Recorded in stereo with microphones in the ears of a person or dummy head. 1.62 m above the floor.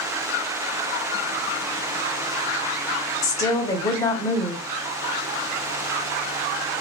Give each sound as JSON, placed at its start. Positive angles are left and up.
{"t": 3.2, "sound": "a woman speaking", "side_deg": 15, "distance_m": 0.7}